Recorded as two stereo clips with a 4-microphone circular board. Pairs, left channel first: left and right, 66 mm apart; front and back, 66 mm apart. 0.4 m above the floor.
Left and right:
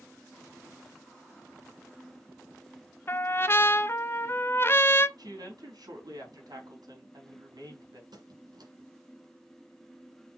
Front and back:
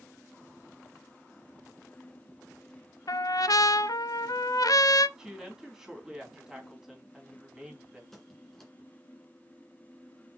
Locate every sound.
3.1 s a trumpet: 30° left, 0.6 m
5.2 s a woman speaking: 100° right, 3.5 m
8.1 s a squeak: 85° right, 2.0 m